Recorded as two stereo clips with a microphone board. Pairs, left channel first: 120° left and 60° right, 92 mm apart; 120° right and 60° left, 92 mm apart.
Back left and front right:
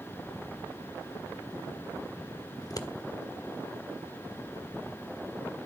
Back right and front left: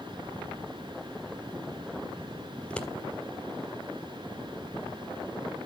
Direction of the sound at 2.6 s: 160° left.